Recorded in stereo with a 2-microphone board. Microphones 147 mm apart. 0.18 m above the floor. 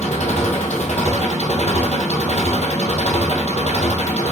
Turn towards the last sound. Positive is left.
turn(degrees=55)  # may be behind; listen again after turning